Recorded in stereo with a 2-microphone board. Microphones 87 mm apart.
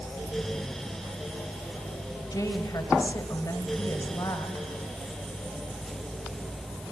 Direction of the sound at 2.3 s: 40° left (ahead or behind).